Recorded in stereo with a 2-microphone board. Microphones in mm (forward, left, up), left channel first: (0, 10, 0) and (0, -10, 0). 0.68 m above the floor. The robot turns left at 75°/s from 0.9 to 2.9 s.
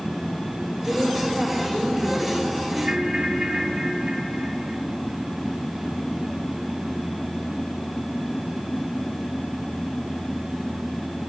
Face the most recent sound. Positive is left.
turn(degrees=-35)  # may be behind; listen again after turning